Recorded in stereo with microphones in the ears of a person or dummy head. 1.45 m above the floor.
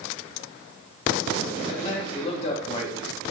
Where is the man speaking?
25° left (ahead or behind), 2.5 m.